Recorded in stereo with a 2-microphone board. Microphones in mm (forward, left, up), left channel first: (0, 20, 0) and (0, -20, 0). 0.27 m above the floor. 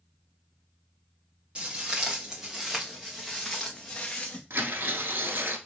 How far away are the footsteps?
About 1.8 m.